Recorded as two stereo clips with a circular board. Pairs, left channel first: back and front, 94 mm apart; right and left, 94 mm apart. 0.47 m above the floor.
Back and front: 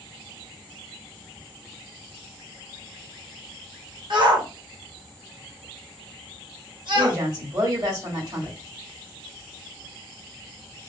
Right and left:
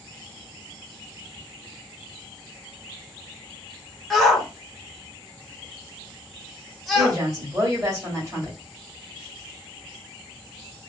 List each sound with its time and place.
4.1 s a shout: straight ahead, 1.3 m
7.0 s a woman speaking: 40° left, 2 m